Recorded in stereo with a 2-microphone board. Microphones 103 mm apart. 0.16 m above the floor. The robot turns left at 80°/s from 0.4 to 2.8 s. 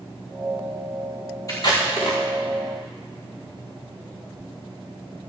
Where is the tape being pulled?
35° left (ahead or behind), 4.5 m; by 2.2 s 85° left, 4.5 m.